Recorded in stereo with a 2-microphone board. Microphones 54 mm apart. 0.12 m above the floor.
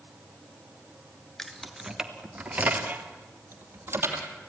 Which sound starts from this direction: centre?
Keys jangling, at 1.4 s.